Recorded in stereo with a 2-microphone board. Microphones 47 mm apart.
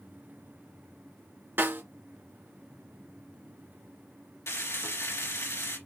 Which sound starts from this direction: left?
Frying, at 4.5 s.